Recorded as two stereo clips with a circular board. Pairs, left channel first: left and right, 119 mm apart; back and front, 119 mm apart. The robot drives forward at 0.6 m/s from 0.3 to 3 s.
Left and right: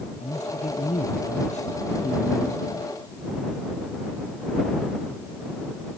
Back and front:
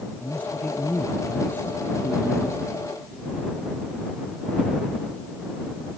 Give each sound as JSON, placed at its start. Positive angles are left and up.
{"t": 0.2, "sound": "a man speaking", "azimuth_deg": 100}